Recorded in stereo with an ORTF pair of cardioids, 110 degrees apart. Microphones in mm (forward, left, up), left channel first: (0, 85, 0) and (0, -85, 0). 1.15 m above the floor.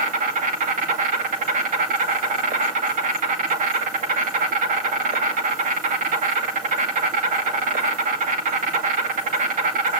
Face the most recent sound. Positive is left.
turn(degrees=-50)